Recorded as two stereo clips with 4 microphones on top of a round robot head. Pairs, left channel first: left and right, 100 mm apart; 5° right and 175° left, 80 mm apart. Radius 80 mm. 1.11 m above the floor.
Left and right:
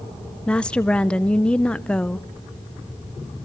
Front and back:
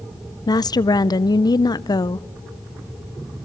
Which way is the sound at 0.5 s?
10° left.